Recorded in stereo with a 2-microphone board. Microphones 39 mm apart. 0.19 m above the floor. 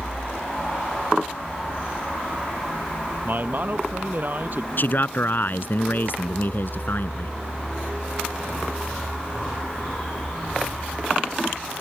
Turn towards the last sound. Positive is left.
turn(degrees=55)  # may be behind; listen again after turning